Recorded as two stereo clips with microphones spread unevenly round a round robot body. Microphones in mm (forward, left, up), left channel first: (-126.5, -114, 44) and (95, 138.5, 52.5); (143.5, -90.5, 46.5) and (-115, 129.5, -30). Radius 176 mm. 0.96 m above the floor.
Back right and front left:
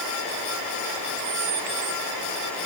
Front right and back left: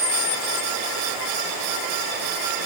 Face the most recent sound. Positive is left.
No sound to turn to.